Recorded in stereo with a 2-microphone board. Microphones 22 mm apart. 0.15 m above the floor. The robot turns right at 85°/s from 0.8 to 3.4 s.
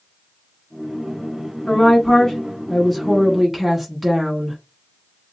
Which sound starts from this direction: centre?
A woman speaking, at 1.7 s.